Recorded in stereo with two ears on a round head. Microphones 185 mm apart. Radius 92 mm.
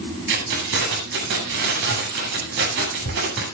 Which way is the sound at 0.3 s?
60° right (ahead or behind).